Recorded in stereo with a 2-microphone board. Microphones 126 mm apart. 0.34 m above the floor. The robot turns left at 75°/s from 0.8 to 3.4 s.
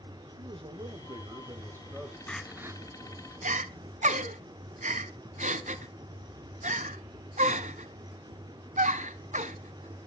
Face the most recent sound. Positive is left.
turn(degrees=-75)  # may be behind; listen again after turning